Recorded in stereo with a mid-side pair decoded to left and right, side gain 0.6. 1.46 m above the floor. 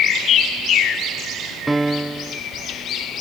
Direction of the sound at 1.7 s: 10° right.